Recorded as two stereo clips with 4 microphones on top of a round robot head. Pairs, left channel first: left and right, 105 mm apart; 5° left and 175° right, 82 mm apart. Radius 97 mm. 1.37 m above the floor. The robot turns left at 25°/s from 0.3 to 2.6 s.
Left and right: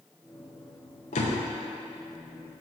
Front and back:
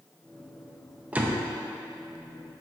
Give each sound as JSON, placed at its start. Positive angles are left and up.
{"t": 1.1, "sound": "a door slam", "azimuth_deg": 110, "distance_m": 0.7}